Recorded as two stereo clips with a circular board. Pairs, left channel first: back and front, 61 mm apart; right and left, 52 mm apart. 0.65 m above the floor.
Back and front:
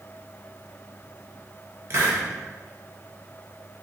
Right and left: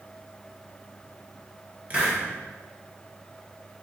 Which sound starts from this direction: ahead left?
A hiss, at 1.9 s.